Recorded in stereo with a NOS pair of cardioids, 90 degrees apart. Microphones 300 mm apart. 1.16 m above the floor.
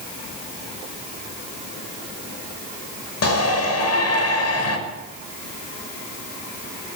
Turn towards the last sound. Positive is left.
turn(degrees=55)